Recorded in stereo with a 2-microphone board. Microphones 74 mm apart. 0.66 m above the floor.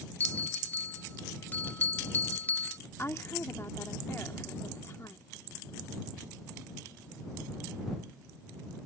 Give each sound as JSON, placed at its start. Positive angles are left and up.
{"t": 0.2, "sound": "a bell", "side_deg": 25}
{"t": 3.0, "sound": "a woman speaking", "side_deg": 35}